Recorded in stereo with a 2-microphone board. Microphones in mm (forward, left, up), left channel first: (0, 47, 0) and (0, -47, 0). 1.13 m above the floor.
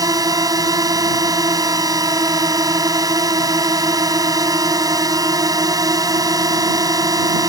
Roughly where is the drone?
Right.